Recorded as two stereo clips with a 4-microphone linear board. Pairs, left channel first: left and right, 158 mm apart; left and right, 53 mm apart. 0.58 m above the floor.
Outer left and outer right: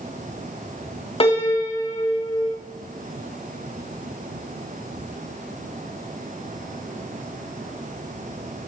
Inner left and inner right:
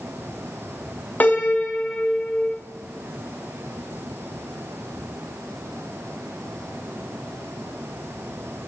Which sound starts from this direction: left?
A piano, at 1.2 s.